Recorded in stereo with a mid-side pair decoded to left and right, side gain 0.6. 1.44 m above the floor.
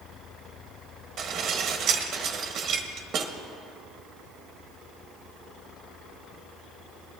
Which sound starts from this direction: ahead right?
Dishes clattering, at 1.2 s.